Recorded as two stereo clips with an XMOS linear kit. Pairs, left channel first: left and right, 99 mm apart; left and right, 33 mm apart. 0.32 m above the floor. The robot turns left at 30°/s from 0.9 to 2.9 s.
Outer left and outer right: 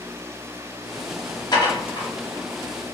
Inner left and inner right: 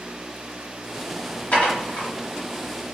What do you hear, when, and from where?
1.5 s dishes clattering: 40° left (ahead or behind), 1.0 m; by 2.1 s 50° left (ahead or behind), 1.0 m